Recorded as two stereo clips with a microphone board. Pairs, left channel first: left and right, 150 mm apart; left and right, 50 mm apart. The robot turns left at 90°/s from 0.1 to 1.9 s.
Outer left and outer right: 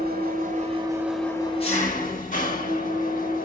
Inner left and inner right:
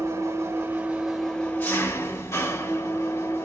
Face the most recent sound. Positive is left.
turn(degrees=115)